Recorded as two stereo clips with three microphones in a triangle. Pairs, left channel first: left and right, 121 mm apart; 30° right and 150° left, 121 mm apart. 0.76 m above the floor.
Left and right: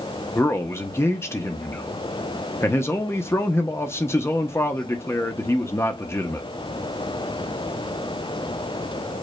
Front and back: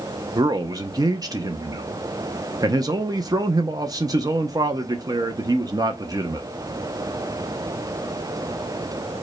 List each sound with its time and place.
0.3 s a man speaking: 135° left, 0.6 m